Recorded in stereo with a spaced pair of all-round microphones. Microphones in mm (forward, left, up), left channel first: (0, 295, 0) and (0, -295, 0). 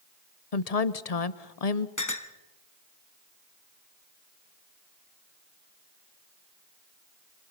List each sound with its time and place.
0.5 s a woman speaking: 80° left, 1.0 m
2.0 s a clink: 30° left (ahead or behind), 1.0 m